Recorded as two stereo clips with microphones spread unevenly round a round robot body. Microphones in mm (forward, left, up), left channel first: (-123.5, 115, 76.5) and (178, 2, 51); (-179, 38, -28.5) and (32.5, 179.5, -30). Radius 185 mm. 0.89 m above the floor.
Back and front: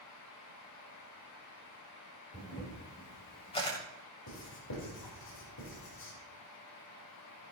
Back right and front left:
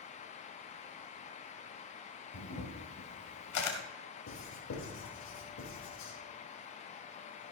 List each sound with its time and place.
2.3 s a camera shutter: 125° right, 2 m
4.3 s writing: 155° right, 4 m